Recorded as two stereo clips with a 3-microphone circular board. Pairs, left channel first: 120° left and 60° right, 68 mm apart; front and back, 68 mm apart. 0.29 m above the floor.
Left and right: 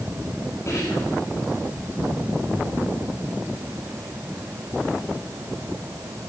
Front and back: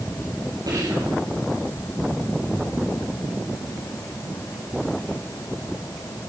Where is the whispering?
165° left, 7.5 m.